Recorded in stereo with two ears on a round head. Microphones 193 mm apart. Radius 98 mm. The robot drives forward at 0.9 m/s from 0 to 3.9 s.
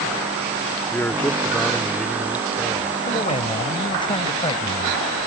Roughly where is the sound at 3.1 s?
Left.